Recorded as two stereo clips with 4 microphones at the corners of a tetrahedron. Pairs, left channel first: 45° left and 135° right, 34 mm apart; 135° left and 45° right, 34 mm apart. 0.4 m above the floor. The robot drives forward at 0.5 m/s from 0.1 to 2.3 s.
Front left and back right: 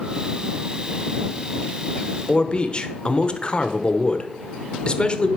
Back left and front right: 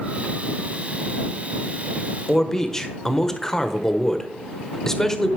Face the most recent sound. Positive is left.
turn(degrees=70)